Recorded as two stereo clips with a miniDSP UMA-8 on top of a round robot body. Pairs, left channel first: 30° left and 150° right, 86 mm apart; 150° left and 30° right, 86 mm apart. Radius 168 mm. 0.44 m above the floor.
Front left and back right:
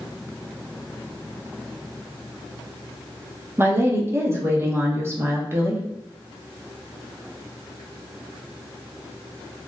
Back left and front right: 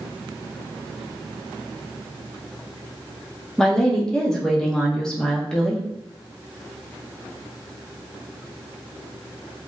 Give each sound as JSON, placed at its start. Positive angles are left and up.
{"t": 3.6, "sound": "a woman speaking", "azimuth_deg": -130, "distance_m": 0.9}